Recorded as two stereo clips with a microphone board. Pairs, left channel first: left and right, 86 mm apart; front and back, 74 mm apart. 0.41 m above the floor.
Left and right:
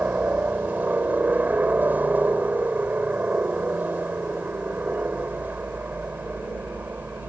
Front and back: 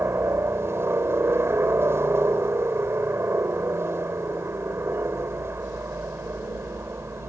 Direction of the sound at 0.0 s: 150° right.